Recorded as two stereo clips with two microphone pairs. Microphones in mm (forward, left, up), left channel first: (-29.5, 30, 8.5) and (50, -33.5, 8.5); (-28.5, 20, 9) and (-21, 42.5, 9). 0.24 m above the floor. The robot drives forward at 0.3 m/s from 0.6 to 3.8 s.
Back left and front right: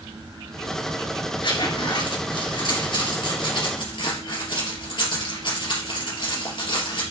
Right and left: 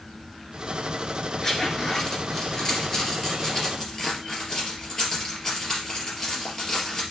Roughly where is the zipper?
Behind.